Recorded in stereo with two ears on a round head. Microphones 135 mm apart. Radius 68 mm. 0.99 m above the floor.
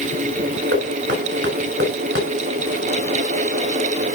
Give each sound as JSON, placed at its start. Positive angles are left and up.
{"t": 0.7, "sound": "knocking", "side_deg": -90, "distance_m": 6.5}